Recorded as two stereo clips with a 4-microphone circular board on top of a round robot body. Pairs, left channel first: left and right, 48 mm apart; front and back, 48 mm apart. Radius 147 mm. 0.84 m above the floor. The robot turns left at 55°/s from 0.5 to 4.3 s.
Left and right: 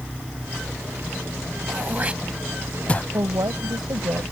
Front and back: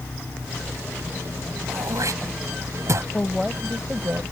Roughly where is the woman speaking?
Right.